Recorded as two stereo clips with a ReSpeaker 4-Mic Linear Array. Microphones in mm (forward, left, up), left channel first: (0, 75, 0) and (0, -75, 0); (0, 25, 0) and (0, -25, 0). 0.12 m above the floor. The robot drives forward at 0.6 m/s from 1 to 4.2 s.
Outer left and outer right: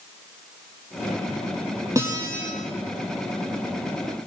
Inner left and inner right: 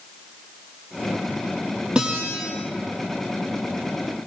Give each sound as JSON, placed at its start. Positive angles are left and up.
{"t": 1.9, "sound": "a guitar", "side_deg": -20, "distance_m": 4.5}